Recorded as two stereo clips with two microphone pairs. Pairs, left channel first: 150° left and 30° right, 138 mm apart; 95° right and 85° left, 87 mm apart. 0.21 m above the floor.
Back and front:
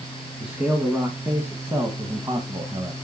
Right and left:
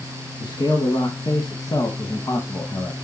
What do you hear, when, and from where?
0.4 s a man speaking: 115° right, 2 m; by 3.0 s 50° right, 1.5 m